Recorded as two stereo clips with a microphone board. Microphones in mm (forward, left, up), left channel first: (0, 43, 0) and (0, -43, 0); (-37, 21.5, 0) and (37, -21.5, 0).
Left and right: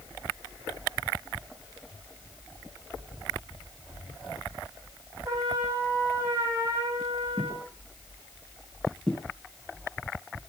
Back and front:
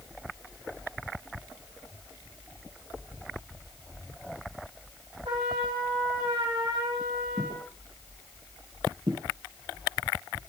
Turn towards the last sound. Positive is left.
turn(degrees=10)